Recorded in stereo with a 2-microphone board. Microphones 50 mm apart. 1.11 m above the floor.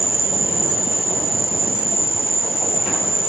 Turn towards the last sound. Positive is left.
turn(degrees=55)  # may be behind; listen again after turning